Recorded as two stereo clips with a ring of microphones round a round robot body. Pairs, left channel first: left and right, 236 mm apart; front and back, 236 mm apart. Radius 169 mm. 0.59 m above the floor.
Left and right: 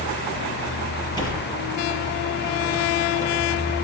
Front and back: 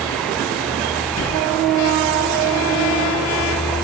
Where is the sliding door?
20° left, 7 m.